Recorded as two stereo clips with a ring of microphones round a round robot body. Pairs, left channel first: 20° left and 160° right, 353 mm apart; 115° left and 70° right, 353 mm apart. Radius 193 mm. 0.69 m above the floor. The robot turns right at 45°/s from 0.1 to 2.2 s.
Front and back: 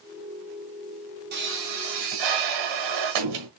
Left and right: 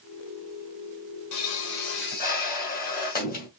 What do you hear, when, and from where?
1.3 s a pop: 140° left, 1.6 m; by 3.5 s straight behind, 1.6 m